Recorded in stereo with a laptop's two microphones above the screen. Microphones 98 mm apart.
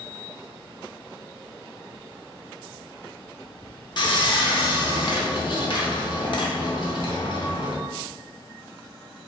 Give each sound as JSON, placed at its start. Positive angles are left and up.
{"t": 4.0, "sound": "sawing", "side_deg": 50, "distance_m": 0.8}